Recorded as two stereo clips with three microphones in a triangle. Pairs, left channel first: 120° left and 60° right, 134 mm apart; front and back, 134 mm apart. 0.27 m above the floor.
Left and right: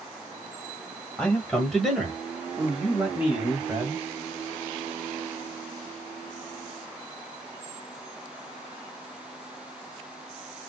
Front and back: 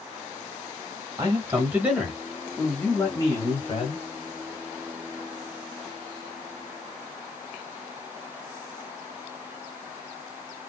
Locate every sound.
1.2 s a man speaking: 170° right, 1.5 m; by 4.0 s 5° left, 1.7 m